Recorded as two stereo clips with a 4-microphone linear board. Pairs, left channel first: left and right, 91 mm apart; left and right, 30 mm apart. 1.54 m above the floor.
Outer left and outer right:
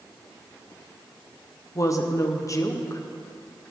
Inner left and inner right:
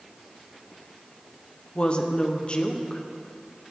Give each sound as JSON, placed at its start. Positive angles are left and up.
{"t": 1.8, "sound": "a woman speaking", "side_deg": 35, "distance_m": 1.0}